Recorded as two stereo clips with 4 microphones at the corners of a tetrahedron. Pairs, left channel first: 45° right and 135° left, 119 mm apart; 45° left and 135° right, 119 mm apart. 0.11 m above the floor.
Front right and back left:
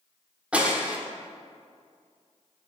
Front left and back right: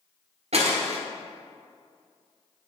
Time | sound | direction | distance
0.5 | breaking glass | 145° right | 1.2 m